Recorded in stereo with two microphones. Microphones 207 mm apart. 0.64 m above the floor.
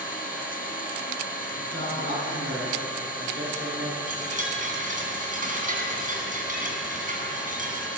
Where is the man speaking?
60° right (ahead or behind), 8 m.